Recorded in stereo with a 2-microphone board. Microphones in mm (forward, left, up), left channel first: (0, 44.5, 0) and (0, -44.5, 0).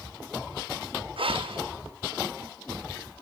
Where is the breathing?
85° right, 1.0 m.